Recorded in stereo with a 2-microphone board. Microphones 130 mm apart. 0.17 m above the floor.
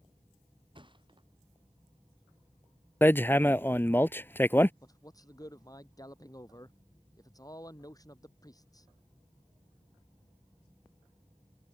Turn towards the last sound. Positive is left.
turn(degrees=30)  # may be behind; listen again after turning